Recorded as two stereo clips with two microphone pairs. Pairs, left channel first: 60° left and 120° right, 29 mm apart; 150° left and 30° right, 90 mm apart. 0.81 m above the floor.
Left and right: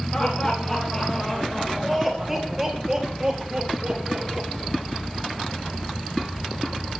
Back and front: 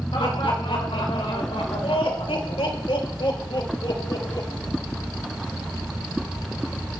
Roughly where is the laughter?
Behind left.